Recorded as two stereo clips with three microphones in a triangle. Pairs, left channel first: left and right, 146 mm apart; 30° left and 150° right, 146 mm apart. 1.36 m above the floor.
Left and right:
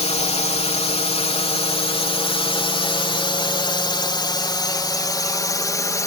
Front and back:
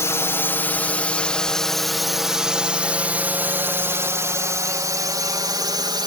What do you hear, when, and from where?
0.0 s a drone: 95° left; by 6.1 s 155° left